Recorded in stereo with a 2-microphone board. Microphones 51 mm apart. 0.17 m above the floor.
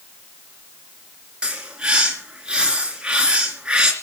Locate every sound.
1.4 s a bird: 20° right (ahead or behind), 2.5 m